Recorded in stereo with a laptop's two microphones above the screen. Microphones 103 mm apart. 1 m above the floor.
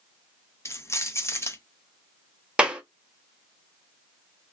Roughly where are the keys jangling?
Left.